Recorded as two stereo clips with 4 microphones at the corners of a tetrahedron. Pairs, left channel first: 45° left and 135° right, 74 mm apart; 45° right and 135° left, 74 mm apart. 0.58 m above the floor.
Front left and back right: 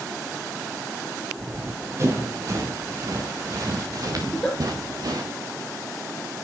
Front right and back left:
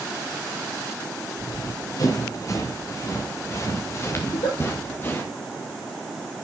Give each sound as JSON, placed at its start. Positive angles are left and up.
{"t": 1.4, "sound": "running footsteps", "azimuth_deg": -80, "distance_m": 5.0}
{"t": 4.2, "sound": "a giggle", "azimuth_deg": -40, "distance_m": 5.0}